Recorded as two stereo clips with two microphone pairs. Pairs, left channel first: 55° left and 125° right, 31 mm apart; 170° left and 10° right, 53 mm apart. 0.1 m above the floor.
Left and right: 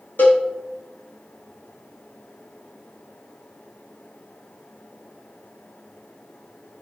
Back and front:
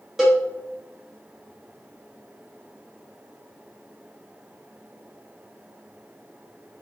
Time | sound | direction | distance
0.2 | a cowbell | 70° left | 4 m